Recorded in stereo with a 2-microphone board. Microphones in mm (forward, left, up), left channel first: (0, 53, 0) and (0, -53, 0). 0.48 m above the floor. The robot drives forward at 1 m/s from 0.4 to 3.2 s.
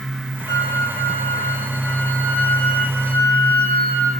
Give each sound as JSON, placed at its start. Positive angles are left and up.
{"t": 0.5, "sound": "a flute", "side_deg": 30, "distance_m": 3.0}